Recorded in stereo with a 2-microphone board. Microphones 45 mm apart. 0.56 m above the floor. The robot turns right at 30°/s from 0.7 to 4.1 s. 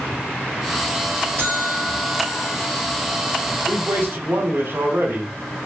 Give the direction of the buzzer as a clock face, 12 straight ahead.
3 o'clock.